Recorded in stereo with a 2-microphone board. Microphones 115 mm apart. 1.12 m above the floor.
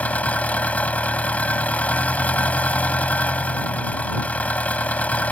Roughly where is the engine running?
Centre.